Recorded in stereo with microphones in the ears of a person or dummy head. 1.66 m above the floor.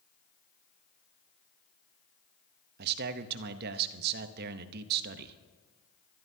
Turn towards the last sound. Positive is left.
turn(degrees=-55)  # may be behind; listen again after turning